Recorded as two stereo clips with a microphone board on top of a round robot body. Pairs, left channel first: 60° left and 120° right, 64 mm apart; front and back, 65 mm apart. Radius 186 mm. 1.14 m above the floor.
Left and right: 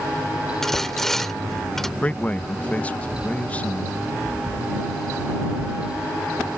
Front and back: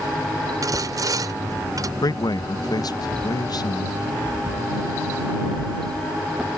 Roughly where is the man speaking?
Ahead.